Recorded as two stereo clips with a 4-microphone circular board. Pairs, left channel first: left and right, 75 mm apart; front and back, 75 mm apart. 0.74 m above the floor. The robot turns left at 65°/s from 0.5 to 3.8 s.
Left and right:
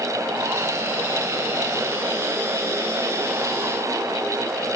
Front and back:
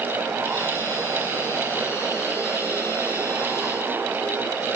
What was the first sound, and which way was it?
Only background noise.